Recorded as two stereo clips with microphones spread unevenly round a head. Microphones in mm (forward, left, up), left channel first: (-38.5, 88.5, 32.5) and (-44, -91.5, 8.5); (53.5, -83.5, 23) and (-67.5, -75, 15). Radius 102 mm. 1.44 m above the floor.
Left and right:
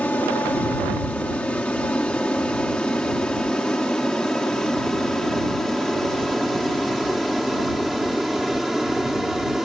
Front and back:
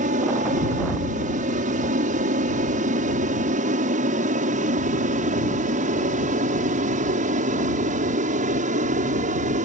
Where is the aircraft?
170° left; by 9.7 s straight behind.